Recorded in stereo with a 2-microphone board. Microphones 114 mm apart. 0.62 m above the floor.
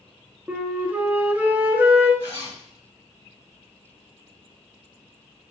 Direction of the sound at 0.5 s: 15° right (ahead or behind).